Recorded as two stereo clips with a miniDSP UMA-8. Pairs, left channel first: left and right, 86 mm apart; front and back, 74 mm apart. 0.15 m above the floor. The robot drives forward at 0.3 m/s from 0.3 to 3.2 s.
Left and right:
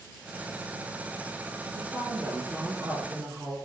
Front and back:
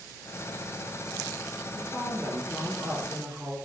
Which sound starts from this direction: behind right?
A woman speaking, at 1.7 s.